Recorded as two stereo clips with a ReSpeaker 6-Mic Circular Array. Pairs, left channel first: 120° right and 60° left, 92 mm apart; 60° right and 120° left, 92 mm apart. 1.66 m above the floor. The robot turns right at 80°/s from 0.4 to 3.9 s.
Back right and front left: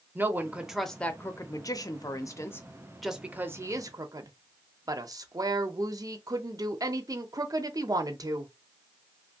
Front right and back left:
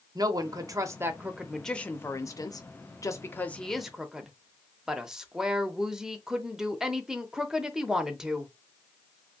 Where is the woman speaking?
120° left, 0.5 m; by 8.5 s 40° left, 0.5 m.